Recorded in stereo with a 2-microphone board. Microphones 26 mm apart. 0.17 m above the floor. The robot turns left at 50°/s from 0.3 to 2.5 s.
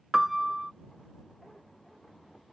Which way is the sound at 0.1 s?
10° right (ahead or behind).